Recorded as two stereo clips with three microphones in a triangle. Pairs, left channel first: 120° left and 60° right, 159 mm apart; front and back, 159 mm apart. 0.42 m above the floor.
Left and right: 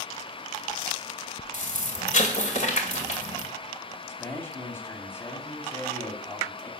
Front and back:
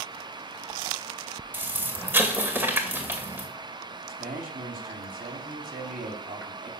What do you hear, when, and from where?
1.5 s an explosion: 105° left, 2 m
4.1 s a man speaking: 165° right, 3 m